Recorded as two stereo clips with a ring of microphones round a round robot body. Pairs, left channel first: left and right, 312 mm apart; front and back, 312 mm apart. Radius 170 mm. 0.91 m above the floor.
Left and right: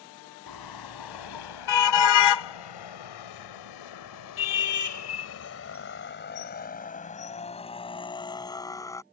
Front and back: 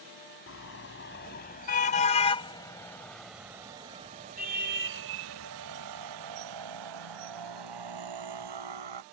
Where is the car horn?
55° left; by 9.0 s 170° left.